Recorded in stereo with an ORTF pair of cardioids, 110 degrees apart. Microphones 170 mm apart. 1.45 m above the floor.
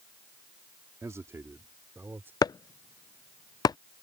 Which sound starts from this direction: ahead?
A man speaking, at 1.0 s.